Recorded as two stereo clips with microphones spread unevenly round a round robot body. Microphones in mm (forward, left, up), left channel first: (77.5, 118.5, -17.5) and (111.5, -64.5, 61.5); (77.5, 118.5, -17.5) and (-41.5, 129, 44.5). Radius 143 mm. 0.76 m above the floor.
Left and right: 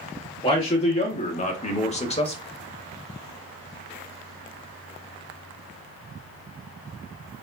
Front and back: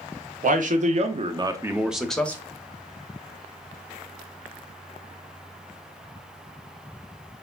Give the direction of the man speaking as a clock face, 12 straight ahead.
7 o'clock.